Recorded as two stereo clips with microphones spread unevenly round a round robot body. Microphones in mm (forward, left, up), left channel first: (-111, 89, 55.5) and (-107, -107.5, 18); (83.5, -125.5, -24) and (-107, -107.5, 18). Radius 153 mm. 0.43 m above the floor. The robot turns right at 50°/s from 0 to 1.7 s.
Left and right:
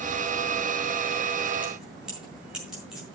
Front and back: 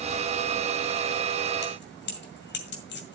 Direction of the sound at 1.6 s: 10° right.